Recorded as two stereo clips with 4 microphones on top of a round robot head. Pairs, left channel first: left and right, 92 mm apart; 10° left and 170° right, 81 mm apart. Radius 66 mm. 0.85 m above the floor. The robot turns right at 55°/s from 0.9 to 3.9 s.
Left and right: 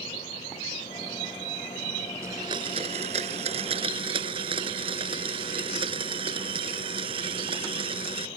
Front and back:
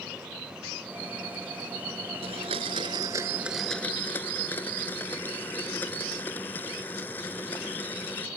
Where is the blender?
160° right; by 8.3 s 65° right.